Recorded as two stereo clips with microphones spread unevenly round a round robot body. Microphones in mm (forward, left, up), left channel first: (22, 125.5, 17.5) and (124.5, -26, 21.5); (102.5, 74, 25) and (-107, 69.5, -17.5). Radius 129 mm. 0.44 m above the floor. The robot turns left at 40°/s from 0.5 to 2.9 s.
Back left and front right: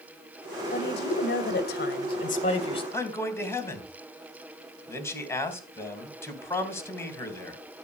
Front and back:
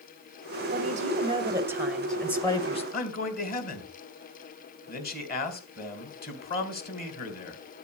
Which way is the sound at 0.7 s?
150° left.